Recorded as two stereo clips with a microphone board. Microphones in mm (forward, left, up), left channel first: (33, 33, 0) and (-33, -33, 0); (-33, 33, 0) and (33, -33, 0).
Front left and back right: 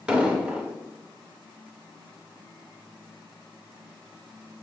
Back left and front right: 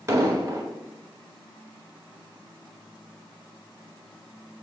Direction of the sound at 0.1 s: 65° right.